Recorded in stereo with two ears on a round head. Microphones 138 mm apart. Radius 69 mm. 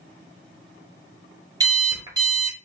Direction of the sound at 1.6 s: 25° right (ahead or behind).